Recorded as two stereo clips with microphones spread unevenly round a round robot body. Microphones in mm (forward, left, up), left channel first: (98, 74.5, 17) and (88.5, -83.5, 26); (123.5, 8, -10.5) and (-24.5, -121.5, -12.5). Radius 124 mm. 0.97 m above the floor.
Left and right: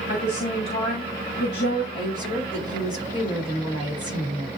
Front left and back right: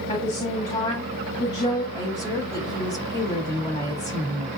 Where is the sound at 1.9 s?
145° left, 5 m.